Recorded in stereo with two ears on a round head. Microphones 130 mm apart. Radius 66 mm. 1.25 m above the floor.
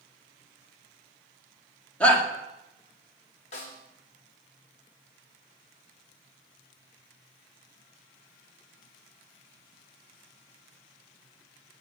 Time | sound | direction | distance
2.0 | a shout | 10° left (ahead or behind) | 2 m
3.5 | a snare drum | 50° left (ahead or behind) | 2.5 m